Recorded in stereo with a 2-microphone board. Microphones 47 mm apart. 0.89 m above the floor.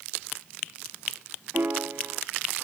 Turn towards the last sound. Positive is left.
turn(degrees=-55)  # may be behind; listen again after turning